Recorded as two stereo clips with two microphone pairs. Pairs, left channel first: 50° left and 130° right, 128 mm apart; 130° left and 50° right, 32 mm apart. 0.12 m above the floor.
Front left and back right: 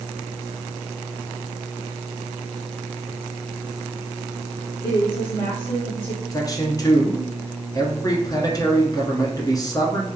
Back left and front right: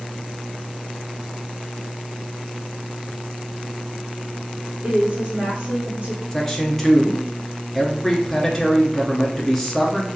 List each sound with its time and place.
4.8 s a woman speaking: straight ahead, 2.5 m
6.3 s a man speaking: 60° left, 1.2 m